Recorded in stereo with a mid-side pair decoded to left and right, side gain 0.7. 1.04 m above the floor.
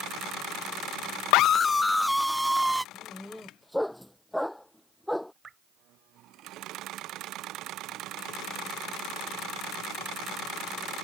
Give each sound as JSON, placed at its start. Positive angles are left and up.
{"t": 1.3, "sound": "a scream", "azimuth_deg": 70}
{"t": 2.9, "sound": "a dog barking", "azimuth_deg": 5}
{"t": 5.4, "sound": "dripping", "azimuth_deg": -25}